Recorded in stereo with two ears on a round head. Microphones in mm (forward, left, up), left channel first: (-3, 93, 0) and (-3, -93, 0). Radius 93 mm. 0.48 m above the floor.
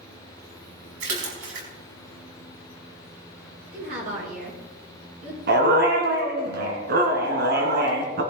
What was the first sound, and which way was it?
A splash, 65° right (ahead or behind).